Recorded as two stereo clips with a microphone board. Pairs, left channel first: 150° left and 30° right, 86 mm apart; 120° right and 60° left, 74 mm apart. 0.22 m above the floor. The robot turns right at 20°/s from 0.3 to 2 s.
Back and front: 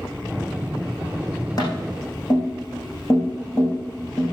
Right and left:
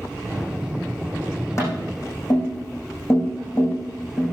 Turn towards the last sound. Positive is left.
turn(degrees=-165)